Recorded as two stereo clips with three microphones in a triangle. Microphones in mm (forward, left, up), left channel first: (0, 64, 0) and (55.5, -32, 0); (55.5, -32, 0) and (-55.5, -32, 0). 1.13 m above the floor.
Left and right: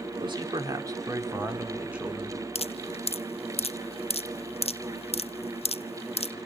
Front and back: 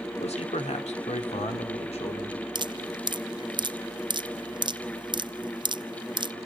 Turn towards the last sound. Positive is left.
turn(degrees=140)